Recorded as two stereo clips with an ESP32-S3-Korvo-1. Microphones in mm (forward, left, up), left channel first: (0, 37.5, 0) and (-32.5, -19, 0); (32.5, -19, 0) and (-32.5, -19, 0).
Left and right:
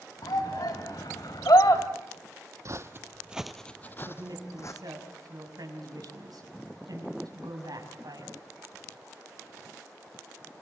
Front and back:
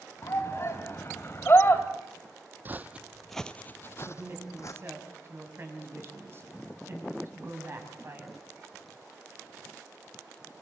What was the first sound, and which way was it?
A shout, 50° left.